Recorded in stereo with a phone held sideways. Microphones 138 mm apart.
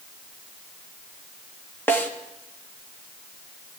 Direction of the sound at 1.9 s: 15° left (ahead or behind).